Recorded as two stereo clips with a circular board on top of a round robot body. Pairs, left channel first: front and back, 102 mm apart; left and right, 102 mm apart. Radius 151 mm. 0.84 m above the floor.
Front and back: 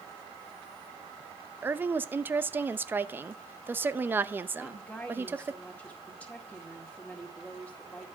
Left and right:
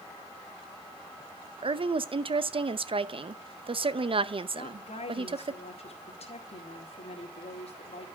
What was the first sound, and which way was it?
A woman speaking, 110° right.